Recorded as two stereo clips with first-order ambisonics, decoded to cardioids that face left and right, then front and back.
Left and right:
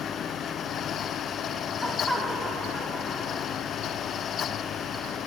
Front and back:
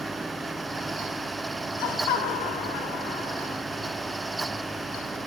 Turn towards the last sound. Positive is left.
turn(degrees=0)